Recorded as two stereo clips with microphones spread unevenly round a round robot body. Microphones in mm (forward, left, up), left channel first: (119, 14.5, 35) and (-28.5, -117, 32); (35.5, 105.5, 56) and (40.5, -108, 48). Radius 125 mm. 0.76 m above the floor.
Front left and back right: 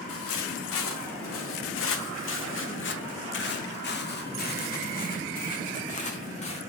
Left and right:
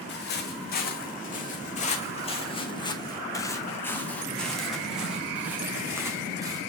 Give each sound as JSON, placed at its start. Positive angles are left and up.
{"t": 0.1, "sound": "footsteps", "azimuth_deg": 50, "distance_m": 3.0}